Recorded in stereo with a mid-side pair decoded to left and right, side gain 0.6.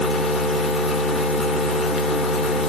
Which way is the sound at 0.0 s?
35° left.